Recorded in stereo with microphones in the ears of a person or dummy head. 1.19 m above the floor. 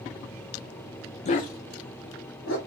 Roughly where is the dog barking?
Left.